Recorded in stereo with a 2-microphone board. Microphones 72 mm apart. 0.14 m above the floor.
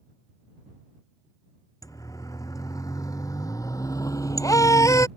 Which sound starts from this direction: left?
A siren, at 1.8 s.